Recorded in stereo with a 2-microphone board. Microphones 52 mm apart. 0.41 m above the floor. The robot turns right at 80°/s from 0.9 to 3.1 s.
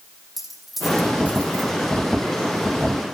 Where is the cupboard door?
I don't hear a cupboard door.